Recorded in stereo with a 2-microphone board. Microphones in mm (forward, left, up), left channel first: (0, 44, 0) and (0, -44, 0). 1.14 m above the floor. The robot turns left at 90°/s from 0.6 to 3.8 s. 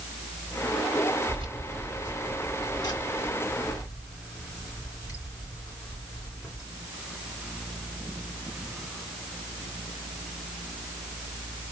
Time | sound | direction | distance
1.3 | keys jangling | 85° right | 3 m